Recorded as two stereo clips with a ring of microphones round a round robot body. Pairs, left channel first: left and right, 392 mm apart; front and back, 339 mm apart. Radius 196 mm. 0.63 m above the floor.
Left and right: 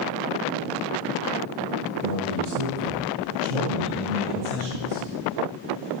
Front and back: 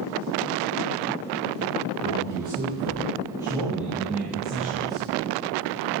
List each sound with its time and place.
2.0 s a man speaking: 100° right, 9.5 m; by 5.1 s 90° right, 8 m